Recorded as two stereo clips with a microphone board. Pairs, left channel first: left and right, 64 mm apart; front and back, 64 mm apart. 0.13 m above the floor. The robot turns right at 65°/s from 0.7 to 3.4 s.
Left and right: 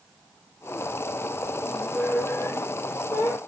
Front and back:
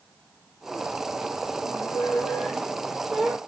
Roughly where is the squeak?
Ahead.